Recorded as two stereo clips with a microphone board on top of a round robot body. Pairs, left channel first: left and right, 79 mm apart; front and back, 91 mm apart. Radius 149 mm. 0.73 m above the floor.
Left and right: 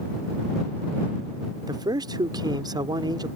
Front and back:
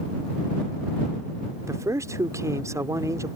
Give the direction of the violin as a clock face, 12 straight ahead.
I don't hear a violin.